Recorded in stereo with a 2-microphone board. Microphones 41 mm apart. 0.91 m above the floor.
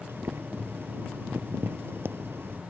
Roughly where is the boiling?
Right.